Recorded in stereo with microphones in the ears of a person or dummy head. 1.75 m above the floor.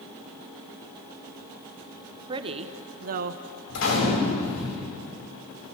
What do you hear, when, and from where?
2.3 s a woman speaking: 20° right (ahead or behind), 1.0 m; by 3.4 s 55° right (ahead or behind), 1.2 m
3.7 s a gunshot: 85° left, 8.5 m